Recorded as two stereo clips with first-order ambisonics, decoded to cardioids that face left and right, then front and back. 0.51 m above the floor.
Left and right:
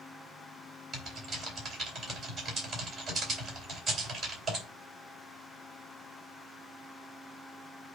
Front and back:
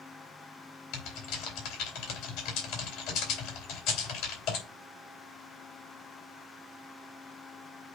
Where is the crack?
I don't hear a crack.